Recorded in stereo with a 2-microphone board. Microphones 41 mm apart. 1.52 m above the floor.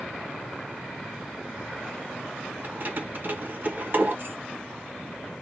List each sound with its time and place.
2.6 s keys jangling: 50° right (ahead or behind), 1.0 m